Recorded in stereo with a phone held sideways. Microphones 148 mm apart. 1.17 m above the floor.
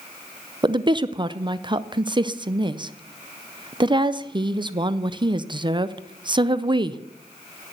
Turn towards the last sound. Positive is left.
turn(degrees=-30)  # may be behind; listen again after turning